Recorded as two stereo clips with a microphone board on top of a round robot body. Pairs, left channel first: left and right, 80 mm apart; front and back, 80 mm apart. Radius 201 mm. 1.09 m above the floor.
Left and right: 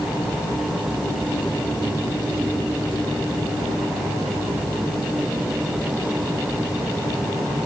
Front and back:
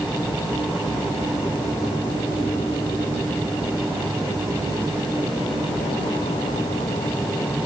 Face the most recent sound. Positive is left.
No sound to turn to.